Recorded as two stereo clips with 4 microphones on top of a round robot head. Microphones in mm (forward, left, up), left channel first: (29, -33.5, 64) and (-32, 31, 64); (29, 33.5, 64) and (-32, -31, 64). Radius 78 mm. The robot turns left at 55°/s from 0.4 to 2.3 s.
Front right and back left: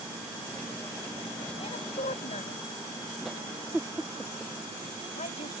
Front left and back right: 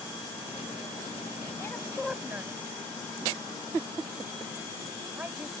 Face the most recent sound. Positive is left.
turn(degrees=-60)